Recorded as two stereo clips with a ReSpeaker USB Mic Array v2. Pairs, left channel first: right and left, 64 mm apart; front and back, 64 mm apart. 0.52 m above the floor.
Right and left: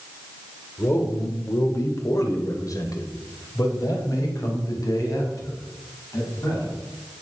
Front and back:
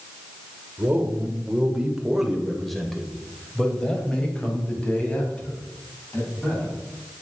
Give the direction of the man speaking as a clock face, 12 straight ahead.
4 o'clock.